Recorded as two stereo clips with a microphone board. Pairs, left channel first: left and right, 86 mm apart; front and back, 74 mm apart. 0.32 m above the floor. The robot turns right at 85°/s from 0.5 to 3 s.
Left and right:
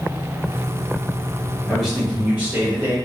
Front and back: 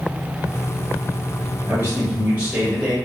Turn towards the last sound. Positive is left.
turn(degrees=-80)